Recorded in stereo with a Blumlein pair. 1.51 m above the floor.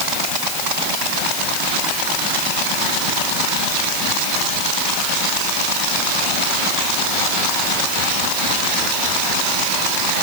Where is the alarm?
No alarm in this recording.